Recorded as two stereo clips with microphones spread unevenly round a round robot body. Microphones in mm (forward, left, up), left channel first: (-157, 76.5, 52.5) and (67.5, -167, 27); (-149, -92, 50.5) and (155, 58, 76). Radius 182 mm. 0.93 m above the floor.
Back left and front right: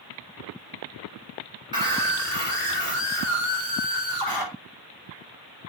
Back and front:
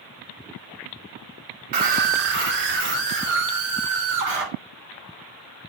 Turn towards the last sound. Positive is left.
turn(degrees=30)